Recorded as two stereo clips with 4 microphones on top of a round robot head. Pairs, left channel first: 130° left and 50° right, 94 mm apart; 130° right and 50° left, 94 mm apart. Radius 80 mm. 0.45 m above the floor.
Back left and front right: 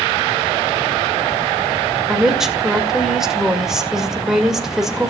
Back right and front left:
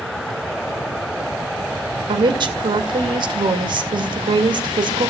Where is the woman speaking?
30° left, 2 m.